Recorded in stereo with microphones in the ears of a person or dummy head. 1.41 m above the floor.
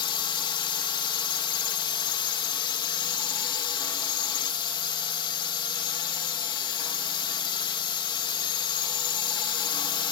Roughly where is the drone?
Left.